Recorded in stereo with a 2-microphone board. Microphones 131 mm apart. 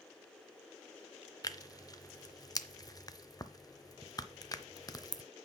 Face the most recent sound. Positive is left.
turn(degrees=30)  # may be behind; listen again after turning